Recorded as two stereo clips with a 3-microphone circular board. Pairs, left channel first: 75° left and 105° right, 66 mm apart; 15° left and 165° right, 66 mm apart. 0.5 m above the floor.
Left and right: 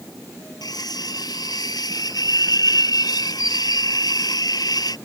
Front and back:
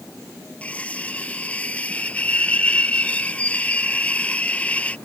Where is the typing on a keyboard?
No typing on a keyboard in this recording.